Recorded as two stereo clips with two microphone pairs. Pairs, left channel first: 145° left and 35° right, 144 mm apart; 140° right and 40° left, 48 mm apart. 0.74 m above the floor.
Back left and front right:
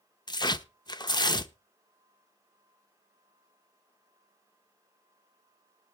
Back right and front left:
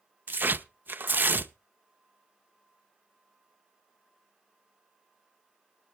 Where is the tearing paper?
85° left, 0.6 m.